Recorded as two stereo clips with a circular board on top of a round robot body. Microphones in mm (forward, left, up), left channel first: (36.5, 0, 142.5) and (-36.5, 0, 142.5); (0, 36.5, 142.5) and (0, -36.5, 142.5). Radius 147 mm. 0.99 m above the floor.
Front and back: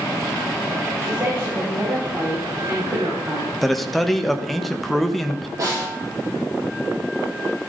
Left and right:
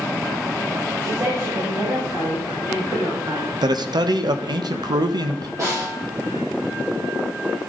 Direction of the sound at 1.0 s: 130° right.